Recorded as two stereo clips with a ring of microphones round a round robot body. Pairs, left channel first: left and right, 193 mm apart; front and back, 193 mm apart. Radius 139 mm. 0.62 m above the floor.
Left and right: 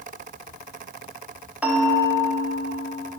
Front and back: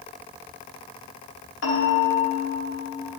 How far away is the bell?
About 1.3 m.